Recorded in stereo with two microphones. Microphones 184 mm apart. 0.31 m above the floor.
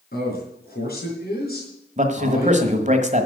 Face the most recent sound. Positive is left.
turn(degrees=-40)  # may be behind; listen again after turning